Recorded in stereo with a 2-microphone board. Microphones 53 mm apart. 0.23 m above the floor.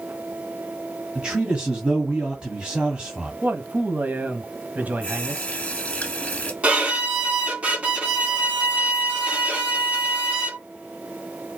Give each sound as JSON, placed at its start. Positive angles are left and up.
{"t": 1.1, "sound": "a man speaking", "side_deg": -15, "distance_m": 1.9}
{"t": 3.4, "sound": "a man speaking", "side_deg": -30, "distance_m": 1.3}
{"t": 5.0, "sound": "a running tap", "side_deg": 20, "distance_m": 1.8}
{"t": 6.6, "sound": "a violin", "side_deg": -20, "distance_m": 2.5}